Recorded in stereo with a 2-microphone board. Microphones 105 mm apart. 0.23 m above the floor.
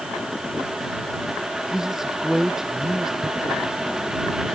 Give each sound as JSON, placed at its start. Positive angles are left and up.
{"t": 1.7, "sound": "a man speaking", "side_deg": -5}
{"t": 3.2, "sound": "a thud", "side_deg": -75}